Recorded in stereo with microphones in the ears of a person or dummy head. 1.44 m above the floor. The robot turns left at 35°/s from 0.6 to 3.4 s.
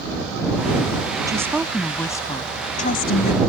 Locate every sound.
1.3 s a woman speaking: 165° right; by 3.4 s 120° left